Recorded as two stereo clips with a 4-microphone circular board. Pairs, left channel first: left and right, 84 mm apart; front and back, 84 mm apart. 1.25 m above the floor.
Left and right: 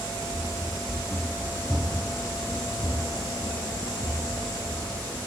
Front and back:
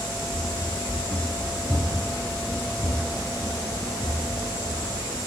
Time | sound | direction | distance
0.3 | running footsteps | 15° left | 1.7 m